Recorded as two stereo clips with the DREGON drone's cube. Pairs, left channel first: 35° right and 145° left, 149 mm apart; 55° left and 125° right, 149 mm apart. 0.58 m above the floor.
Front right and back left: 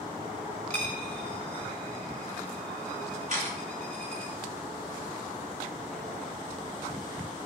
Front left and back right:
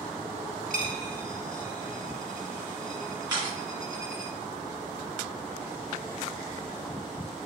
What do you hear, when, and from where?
0.7 s a dropped coin: 45° left, 0.8 m
3.3 s a camera shutter: 175° left, 1.9 m